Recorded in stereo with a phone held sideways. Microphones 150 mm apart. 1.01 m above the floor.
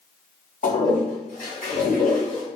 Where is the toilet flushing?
65° left (ahead or behind), 2 m.